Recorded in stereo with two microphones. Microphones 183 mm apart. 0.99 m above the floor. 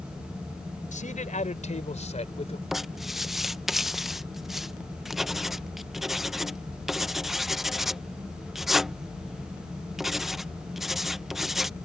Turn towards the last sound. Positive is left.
turn(degrees=0)  # may be behind; listen again after turning